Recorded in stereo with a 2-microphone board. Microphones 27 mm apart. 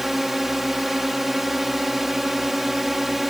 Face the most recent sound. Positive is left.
turn(degrees=-5)  # may be behind; listen again after turning